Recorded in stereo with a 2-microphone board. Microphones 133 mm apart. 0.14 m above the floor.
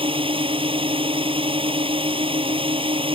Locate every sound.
0.0 s a drone: 45° right (ahead or behind)